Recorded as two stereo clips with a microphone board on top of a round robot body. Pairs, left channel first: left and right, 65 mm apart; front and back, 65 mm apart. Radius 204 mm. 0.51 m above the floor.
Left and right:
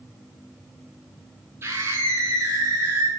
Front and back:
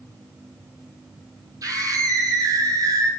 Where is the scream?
145° right, 9 m; by 3.1 s 150° right, 10 m.